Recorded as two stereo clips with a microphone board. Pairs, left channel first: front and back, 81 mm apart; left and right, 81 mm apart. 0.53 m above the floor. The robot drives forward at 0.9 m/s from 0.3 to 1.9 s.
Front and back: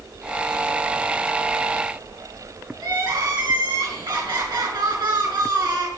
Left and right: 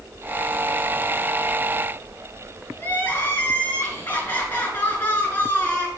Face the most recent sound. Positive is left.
turn(degrees=155)